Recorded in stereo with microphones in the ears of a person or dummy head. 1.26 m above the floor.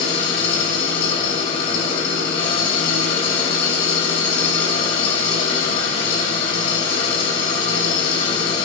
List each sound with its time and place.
0.0 s an engine running: 35° left (ahead or behind), 4.5 m